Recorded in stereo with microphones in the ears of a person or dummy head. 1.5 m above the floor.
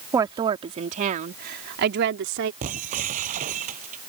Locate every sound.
0.1 s a woman speaking: 20° right (ahead or behind); by 2.5 s 70° right (ahead or behind)
2.6 s breaking glass: 45° right (ahead or behind)